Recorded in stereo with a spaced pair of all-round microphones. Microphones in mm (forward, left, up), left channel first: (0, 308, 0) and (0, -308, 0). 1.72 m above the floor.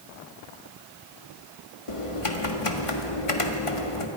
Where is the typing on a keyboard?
55° left (ahead or behind), 1.7 m.